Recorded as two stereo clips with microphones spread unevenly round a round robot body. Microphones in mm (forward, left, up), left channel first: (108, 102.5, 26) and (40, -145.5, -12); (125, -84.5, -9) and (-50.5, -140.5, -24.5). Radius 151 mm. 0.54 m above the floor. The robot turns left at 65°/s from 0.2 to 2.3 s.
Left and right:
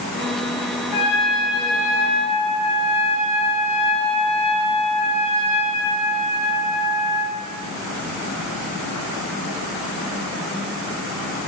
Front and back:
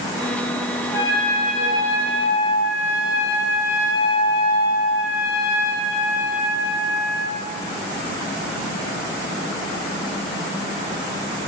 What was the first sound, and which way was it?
A trumpet, 100° left.